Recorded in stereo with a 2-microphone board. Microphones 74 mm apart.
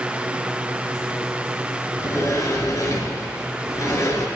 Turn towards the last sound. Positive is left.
turn(degrees=45)  # may be behind; listen again after turning